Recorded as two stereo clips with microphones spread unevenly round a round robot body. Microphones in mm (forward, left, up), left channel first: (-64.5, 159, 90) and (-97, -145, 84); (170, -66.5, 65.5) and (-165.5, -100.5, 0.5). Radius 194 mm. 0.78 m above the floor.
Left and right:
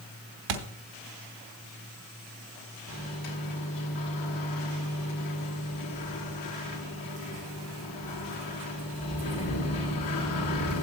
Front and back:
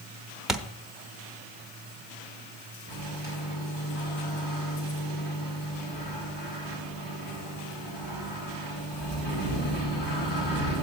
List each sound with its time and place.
0.5 s a thud: 85° right, 1.1 m
2.9 s a microwave: 70° left, 3 m